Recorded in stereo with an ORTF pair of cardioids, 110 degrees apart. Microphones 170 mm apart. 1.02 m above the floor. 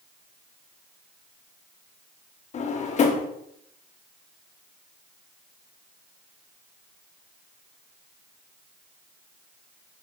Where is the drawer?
45° left, 1.2 m.